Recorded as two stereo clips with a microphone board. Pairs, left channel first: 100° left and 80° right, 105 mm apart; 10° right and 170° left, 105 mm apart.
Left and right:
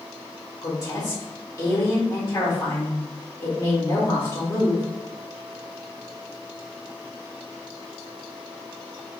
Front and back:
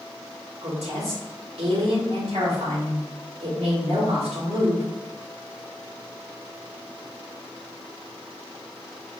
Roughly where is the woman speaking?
Behind.